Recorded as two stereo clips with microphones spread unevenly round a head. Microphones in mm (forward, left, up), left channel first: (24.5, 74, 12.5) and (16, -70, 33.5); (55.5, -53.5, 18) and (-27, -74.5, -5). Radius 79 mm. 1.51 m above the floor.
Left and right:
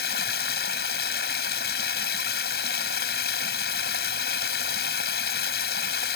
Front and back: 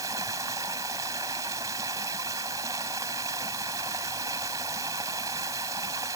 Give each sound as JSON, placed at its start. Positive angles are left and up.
{"t": 0.0, "sound": "running water", "azimuth_deg": 120}